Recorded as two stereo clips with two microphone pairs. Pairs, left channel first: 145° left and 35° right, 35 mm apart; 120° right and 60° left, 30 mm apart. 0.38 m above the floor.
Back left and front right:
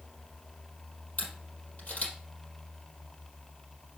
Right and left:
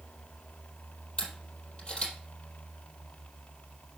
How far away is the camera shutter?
About 4 m.